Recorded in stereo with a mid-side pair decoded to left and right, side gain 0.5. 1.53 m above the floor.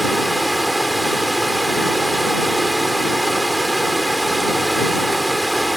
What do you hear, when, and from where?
0.0 s running water: 10° right